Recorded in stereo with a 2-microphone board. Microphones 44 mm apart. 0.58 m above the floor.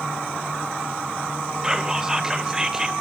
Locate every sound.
1.6 s whispering: 15° right (ahead or behind), 1.9 m